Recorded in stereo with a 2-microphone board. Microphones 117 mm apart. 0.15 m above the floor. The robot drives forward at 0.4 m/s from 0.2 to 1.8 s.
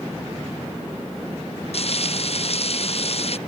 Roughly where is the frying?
Left.